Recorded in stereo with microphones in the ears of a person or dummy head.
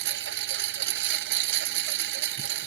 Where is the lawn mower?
70° right (ahead or behind).